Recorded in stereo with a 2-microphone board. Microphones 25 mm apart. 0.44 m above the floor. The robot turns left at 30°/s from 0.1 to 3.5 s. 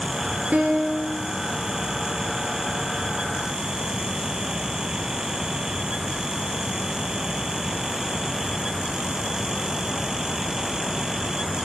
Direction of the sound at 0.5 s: 85° right.